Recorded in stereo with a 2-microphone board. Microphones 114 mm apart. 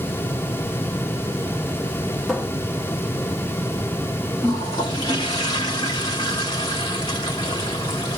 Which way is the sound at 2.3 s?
5° right (ahead or behind).